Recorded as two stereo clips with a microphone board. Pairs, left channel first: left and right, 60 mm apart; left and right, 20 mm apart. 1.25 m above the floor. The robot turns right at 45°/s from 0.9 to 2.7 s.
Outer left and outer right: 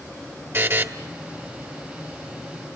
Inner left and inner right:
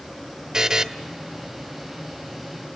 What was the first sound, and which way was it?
A buzzer, 40° right (ahead or behind).